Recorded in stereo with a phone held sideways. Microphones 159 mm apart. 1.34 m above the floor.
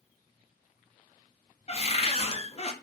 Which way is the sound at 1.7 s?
40° left (ahead or behind).